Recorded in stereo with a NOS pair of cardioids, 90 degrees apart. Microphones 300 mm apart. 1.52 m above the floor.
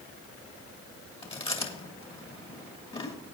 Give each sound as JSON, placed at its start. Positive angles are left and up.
{"t": 1.2, "sound": "chewing", "azimuth_deg": 20, "distance_m": 2.0}